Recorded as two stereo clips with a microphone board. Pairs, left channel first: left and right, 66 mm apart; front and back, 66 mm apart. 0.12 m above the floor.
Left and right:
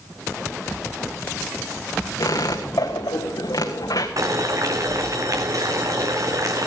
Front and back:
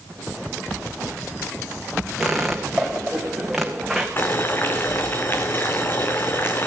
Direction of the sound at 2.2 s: 95° left.